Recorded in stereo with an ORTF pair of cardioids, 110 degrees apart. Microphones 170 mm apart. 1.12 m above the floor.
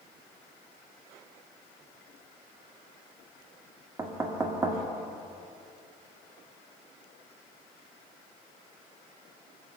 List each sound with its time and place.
4.0 s knocking: 15° right, 1.5 m